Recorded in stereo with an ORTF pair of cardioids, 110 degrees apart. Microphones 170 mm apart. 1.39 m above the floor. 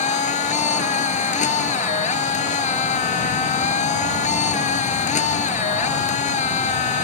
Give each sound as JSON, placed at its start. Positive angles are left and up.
{"t": 0.0, "sound": "a machine running", "azimuth_deg": 45}